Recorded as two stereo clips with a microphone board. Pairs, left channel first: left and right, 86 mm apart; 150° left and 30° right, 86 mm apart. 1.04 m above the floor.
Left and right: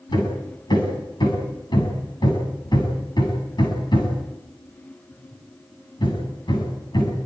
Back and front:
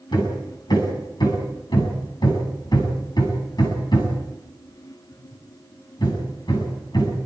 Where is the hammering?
120° left, 7.5 m.